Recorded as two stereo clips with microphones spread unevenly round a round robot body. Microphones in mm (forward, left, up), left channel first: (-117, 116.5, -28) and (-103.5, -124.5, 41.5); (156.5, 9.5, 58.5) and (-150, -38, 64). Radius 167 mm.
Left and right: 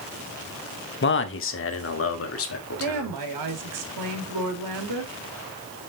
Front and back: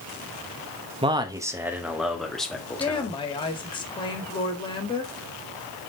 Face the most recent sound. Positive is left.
turn(degrees=-65)